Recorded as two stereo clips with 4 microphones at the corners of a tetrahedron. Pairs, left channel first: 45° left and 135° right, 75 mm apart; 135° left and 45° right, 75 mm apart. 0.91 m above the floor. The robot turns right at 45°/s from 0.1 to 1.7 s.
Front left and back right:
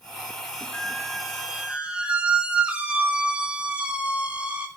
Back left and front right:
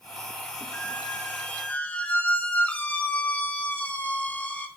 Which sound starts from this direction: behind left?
A squeak, at 0.7 s.